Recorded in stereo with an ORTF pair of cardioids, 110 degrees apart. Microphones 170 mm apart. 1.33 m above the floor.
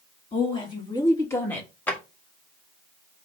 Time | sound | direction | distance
0.3 | a woman speaking | 35° left | 2.5 m
1.9 | a drawer | 10° left | 1.5 m